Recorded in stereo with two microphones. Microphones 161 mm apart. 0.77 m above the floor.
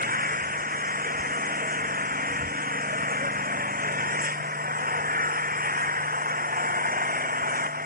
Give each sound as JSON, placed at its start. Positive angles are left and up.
{"t": 0.0, "sound": "an engine running", "side_deg": -65}